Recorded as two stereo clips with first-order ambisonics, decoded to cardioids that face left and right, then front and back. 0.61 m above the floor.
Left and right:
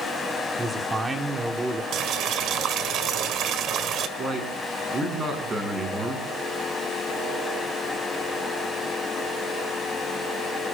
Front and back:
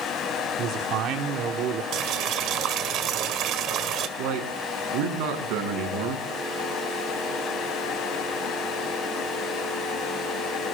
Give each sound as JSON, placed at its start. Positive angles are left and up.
{"t": 0.6, "sound": "a man speaking", "azimuth_deg": -165, "distance_m": 1.8}
{"t": 1.9, "sound": "boiling", "azimuth_deg": -140, "distance_m": 1.7}
{"t": 4.2, "sound": "a man speaking", "azimuth_deg": -160, "distance_m": 6.5}